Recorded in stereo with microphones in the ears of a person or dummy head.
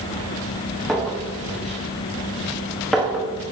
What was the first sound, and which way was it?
A clink, centre (ahead or behind).